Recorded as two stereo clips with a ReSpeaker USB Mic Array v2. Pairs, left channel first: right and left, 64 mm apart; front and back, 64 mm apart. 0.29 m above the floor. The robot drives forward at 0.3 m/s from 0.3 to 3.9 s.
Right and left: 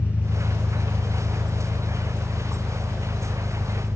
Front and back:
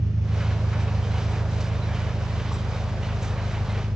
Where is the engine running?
150° right, 0.8 m; by 4.0 s 165° right, 1.8 m.